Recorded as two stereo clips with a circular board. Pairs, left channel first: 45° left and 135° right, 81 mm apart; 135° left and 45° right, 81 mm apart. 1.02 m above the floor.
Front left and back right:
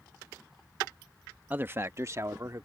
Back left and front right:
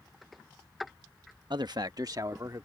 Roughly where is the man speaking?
Ahead right.